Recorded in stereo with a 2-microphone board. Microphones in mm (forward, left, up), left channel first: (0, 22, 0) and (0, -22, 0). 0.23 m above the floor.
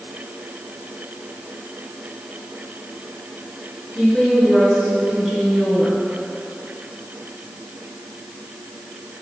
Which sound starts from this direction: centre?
A woman speaking, at 4.0 s.